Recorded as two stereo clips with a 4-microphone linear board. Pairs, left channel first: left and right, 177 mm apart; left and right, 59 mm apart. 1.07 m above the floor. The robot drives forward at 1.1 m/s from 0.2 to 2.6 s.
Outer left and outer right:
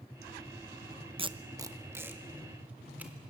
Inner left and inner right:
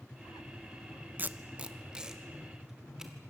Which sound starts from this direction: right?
Tape being pulled, at 1.2 s.